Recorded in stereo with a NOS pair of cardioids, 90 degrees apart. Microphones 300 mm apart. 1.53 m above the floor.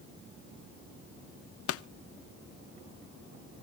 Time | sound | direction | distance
1.7 | a pop | 50° left | 0.6 m